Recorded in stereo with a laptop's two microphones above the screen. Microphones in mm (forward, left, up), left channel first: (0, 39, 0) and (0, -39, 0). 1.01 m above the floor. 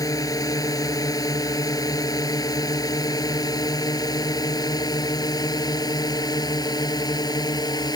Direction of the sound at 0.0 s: 50° left (ahead or behind).